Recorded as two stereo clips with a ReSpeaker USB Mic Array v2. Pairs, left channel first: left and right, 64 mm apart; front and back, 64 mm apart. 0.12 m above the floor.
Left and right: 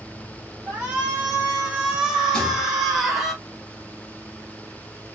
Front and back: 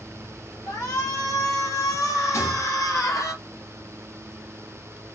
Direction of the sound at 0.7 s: 25° right.